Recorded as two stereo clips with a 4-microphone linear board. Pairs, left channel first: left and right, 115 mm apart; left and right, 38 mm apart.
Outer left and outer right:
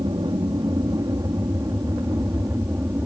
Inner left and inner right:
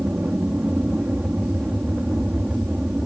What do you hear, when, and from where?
0.0 s an aircraft: 45° right (ahead or behind); by 3.1 s 20° right (ahead or behind)